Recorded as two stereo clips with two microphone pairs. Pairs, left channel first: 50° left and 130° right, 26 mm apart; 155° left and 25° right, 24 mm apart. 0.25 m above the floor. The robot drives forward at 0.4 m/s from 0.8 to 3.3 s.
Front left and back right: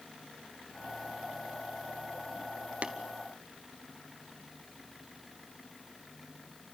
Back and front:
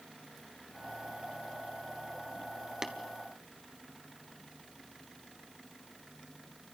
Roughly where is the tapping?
Right.